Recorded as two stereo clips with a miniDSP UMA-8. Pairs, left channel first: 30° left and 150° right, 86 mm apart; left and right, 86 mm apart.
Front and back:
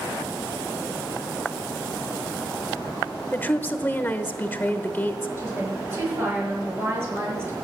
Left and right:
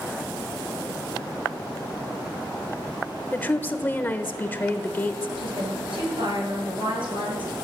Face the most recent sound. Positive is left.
turn(degrees=-85)